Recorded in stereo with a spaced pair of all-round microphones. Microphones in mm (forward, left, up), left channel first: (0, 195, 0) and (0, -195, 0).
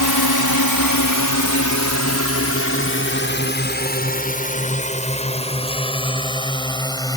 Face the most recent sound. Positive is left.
turn(degrees=10)  # may be behind; listen again after turning